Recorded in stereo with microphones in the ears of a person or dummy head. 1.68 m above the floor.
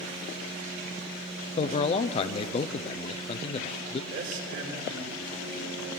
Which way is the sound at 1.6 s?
35° left (ahead or behind).